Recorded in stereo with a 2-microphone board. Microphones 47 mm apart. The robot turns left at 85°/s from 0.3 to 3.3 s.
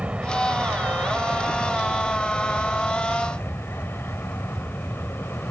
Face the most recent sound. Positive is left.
turn(degrees=75)